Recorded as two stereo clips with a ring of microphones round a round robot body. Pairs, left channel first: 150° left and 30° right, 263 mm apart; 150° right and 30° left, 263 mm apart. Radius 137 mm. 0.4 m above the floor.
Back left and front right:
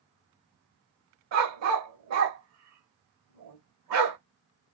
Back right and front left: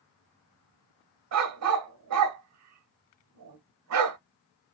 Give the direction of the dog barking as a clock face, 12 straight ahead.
12 o'clock.